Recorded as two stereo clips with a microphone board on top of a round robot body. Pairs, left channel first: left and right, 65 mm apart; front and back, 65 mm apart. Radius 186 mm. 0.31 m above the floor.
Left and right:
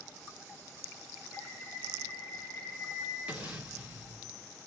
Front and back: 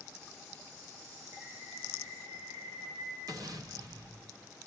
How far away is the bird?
About 4.5 m.